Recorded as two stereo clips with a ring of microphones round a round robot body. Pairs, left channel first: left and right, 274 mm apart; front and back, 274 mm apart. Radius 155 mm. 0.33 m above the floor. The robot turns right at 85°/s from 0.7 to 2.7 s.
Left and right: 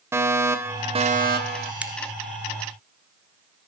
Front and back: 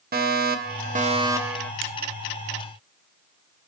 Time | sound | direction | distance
0.1 | a fire alarm | 165° right | 3 m
1.8 | a crack | 175° right | 1.4 m